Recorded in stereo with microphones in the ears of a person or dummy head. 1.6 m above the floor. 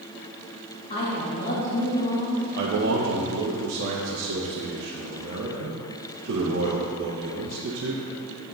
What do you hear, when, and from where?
0.9 s a woman speaking: 35° left (ahead or behind), 2.5 m
2.5 s a man speaking: 55° right (ahead or behind), 0.7 m